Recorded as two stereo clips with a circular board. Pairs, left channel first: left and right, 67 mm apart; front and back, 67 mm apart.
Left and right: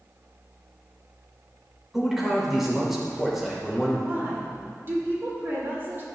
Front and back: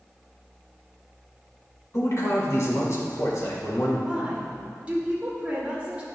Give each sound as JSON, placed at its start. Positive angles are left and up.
{"t": 1.9, "sound": "a man speaking", "azimuth_deg": -5, "distance_m": 1.8}
{"t": 4.0, "sound": "a woman speaking", "azimuth_deg": -120, "distance_m": 1.5}